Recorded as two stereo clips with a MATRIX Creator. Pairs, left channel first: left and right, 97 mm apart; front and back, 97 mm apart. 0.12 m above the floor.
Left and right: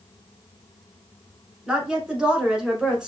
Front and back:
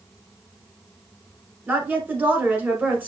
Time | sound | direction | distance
1.7 | a woman speaking | 155° right | 1.1 m